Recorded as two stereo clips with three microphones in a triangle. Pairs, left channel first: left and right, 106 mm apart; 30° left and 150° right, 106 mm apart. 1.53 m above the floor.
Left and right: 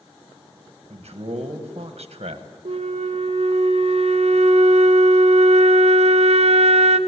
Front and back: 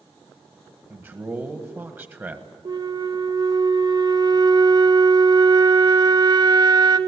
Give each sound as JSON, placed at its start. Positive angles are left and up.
{"t": 0.9, "sound": "a man speaking", "azimuth_deg": -80, "distance_m": 1.4}
{"t": 2.6, "sound": "a flute", "azimuth_deg": -100, "distance_m": 0.7}